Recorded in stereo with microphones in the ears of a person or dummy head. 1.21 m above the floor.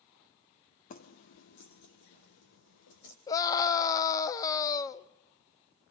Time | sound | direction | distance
0.9 | keys jangling | 45° left (ahead or behind) | 1.1 m
3.3 | a scream | 20° left (ahead or behind) | 1.0 m